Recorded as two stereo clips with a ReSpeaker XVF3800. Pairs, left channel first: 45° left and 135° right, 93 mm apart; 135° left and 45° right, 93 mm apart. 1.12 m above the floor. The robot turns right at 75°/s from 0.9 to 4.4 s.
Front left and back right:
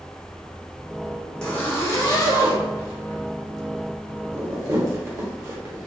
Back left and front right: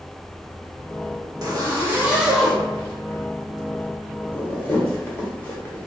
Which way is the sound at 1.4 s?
35° right.